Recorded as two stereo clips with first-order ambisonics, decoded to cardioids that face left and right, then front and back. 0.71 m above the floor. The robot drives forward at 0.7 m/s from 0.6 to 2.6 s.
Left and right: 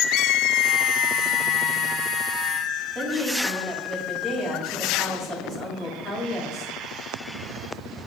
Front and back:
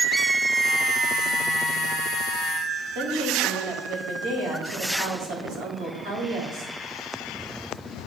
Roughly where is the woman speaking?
Behind.